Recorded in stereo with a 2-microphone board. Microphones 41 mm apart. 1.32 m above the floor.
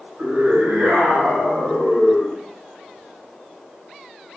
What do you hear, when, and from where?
0.2 s a scream: 85° right, 1.6 m; by 2.4 s 40° right (ahead or behind), 2.5 m